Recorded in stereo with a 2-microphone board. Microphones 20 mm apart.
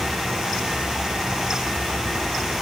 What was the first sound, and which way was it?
Only background noise.